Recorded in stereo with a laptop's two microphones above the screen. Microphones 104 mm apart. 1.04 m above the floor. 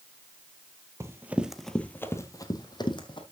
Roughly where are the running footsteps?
Right.